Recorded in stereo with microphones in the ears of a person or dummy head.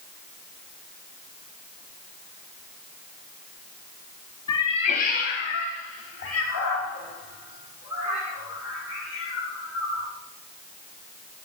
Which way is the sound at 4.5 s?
20° left (ahead or behind).